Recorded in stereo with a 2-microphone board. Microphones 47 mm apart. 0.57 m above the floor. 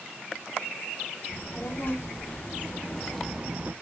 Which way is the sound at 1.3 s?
55° left (ahead or behind).